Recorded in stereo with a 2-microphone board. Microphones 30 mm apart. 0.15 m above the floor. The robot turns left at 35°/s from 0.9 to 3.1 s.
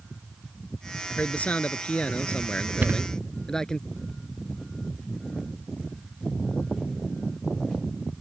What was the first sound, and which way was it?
A man speaking, 100° left.